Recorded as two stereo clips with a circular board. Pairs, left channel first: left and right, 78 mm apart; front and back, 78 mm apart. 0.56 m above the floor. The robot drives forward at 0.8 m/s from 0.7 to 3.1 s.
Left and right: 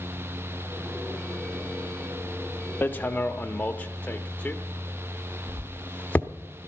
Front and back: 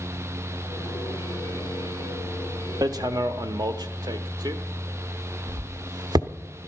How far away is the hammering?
About 0.6 m.